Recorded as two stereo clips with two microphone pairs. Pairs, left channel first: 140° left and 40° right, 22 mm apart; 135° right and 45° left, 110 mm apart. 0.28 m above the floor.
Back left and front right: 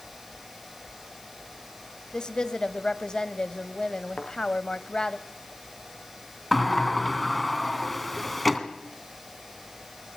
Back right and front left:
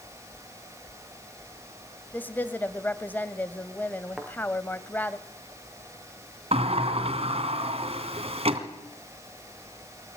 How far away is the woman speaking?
About 1.5 m.